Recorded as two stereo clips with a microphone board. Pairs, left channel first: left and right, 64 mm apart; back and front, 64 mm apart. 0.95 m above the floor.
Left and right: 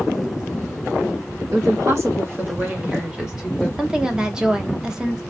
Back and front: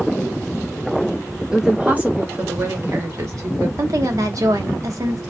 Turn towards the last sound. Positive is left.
turn(degrees=-15)